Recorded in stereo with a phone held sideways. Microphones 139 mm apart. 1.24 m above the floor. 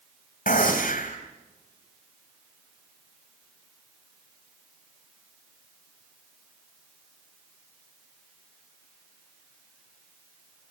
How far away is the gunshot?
About 3.5 m.